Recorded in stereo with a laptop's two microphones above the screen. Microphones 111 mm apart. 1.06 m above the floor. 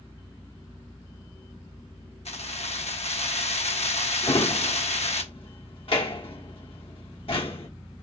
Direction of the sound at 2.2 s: 75° left (ahead or behind).